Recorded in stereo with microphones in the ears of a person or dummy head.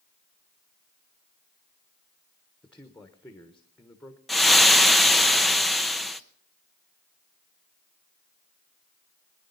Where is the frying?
Centre (ahead or behind), 0.6 m.